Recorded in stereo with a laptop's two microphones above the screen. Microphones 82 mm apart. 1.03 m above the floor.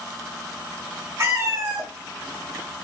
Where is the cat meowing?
35° right (ahead or behind), 0.9 m.